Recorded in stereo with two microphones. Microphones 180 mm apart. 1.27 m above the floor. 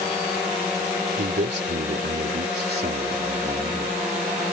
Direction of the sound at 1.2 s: 90° right.